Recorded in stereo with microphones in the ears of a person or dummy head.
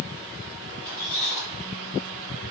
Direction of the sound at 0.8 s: 20° left (ahead or behind).